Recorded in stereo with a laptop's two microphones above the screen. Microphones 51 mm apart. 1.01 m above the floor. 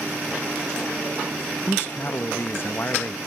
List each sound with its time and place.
1.7 s a man speaking: 45° left (ahead or behind)